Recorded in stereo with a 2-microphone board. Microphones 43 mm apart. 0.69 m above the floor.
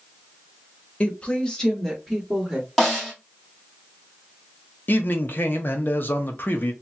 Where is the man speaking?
50° left (ahead or behind), 0.7 m.